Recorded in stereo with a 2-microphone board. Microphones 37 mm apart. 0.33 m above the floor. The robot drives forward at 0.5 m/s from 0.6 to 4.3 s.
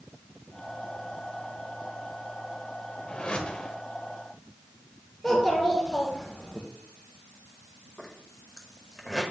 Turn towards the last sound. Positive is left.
turn(degrees=5)  # may be behind; listen again after turning